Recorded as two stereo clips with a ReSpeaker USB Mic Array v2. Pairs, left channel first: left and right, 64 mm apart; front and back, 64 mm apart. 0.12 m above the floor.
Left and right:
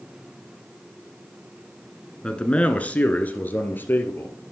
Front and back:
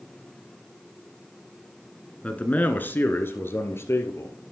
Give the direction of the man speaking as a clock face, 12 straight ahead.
11 o'clock.